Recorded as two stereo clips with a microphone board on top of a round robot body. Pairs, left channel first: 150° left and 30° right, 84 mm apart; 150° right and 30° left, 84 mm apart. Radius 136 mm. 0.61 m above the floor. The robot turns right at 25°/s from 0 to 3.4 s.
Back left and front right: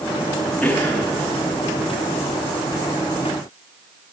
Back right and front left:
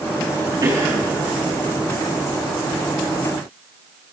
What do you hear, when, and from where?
0.6 s a cough: 75° left, 9.5 m; by 1.1 s 85° left, 9.5 m